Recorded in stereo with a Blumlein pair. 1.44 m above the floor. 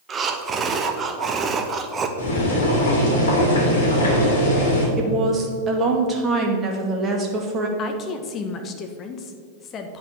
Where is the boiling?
65° left, 3 m.